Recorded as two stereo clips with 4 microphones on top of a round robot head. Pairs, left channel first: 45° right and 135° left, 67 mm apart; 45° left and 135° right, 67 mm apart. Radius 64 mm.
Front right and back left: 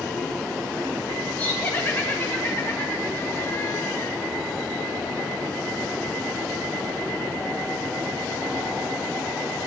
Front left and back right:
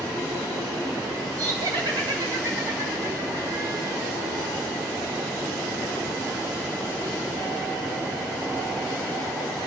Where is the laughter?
110° right, 2.5 m; by 4.1 s 100° right, 1.3 m.